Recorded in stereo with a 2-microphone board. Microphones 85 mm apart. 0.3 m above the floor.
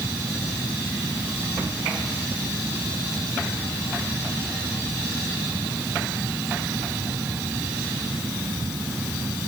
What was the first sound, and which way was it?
Only background noise.